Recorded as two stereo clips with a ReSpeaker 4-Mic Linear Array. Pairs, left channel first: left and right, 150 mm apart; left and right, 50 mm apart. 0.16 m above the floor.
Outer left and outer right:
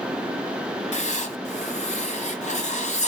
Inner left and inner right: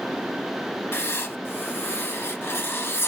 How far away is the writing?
About 1.3 m.